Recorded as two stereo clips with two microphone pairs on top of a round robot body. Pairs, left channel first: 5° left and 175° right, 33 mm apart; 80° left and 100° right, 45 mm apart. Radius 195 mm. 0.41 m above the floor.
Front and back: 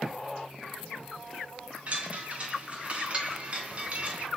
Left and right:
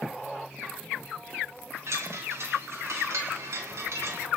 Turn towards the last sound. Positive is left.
turn(degrees=-115)